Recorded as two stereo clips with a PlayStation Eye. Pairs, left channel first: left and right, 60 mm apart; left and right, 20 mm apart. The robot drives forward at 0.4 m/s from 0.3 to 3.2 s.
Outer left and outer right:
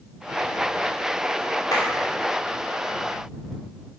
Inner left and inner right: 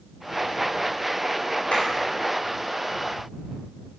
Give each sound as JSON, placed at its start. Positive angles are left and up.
{"t": 1.7, "sound": "a clap", "side_deg": 80, "distance_m": 4.5}